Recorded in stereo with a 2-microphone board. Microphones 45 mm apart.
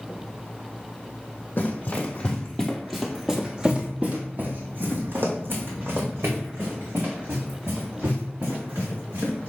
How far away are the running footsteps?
About 1.2 m.